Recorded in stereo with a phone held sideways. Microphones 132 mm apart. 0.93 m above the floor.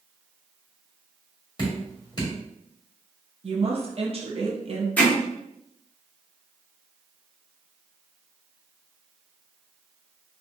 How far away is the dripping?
About 2 m.